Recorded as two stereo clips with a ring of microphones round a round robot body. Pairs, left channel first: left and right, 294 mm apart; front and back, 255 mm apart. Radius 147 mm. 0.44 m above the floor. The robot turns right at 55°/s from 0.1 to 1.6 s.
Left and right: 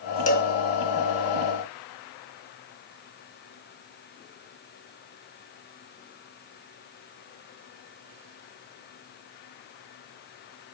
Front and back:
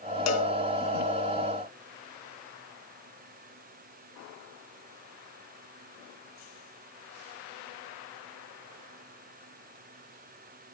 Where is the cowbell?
25° left, 1.4 m; by 0.5 s 40° left, 1.4 m.